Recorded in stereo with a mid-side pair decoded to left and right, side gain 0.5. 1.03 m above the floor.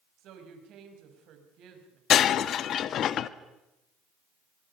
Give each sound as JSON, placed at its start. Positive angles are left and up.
{"t": 0.2, "sound": "a woman speaking", "azimuth_deg": -70, "distance_m": 5.5}
{"t": 2.1, "sound": "breaking glass", "azimuth_deg": 60, "distance_m": 0.8}